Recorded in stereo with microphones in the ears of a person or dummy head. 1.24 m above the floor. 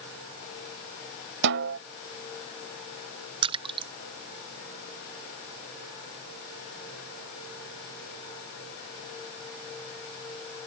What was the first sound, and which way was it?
A snare drum, 60° right (ahead or behind).